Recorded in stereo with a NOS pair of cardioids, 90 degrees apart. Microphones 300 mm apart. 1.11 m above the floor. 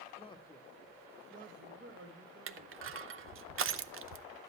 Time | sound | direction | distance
0.2 | a man speaking | 20° left | 1.0 m
2.5 | crushing | 45° right | 0.6 m